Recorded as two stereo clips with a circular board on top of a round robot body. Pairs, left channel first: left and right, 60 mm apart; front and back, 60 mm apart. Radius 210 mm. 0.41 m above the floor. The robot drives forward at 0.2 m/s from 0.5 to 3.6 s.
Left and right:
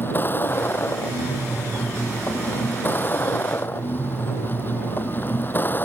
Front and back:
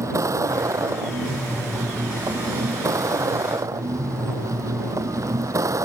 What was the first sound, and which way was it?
A vehicle, 145° left.